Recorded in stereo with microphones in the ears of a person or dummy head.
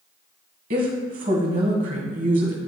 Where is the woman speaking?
35° right (ahead or behind), 1.5 m.